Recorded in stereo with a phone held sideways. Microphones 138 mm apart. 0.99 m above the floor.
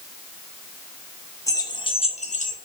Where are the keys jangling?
20° left (ahead or behind), 1.2 m; by 2.5 s 65° left (ahead or behind), 1.0 m.